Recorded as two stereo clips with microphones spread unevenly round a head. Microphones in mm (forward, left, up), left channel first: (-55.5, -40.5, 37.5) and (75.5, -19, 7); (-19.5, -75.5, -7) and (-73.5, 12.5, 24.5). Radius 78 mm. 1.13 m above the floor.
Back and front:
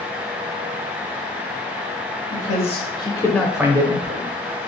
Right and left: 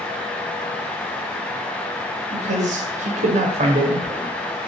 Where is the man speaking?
145° left, 1.0 m; by 4.2 s 30° left, 0.7 m.